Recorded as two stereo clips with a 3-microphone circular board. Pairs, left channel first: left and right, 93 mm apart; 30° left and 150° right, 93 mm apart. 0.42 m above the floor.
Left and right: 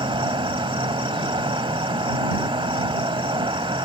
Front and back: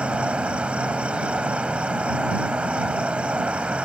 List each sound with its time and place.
0.0 s an insect: 70° right